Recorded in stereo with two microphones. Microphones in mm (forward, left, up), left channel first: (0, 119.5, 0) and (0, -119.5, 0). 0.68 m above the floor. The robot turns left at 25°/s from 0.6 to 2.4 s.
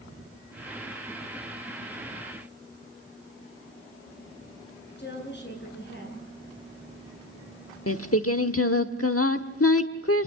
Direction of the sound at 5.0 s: 45° left (ahead or behind).